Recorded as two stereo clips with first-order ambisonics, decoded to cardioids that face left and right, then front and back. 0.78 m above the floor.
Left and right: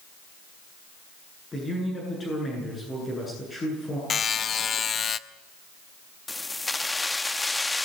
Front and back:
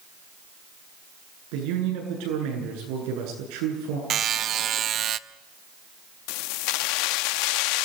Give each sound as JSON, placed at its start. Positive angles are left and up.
{"t": 1.5, "sound": "a man speaking", "azimuth_deg": 165, "distance_m": 9.0}
{"t": 4.1, "sound": "a buzzer", "azimuth_deg": 145, "distance_m": 0.6}
{"t": 6.3, "sound": "keys jangling", "azimuth_deg": 10, "distance_m": 0.5}